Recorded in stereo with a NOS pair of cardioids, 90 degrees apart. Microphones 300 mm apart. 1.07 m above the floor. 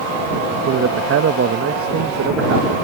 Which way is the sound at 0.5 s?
50° right.